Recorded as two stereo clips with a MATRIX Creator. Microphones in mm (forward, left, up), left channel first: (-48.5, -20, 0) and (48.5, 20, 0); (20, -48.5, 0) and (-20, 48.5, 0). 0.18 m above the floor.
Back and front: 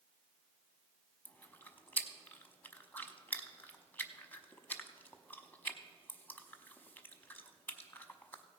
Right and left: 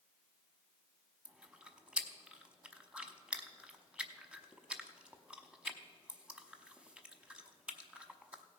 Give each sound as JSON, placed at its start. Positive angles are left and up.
{"t": 1.2, "sound": "chewing", "azimuth_deg": 175, "distance_m": 0.8}